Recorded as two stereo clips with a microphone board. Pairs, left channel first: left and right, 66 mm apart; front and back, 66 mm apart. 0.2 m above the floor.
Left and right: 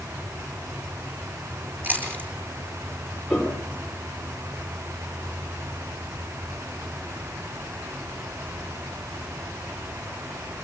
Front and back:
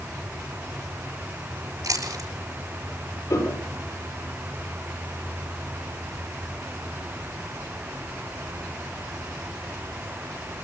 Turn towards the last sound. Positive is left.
turn(degrees=0)